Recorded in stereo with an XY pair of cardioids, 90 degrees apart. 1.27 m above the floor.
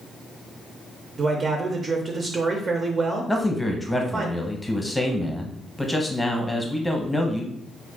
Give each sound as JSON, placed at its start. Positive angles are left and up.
{"t": 1.2, "sound": "a man speaking", "azimuth_deg": -45, "distance_m": 0.5}
{"t": 3.3, "sound": "a man speaking", "azimuth_deg": 5, "distance_m": 0.8}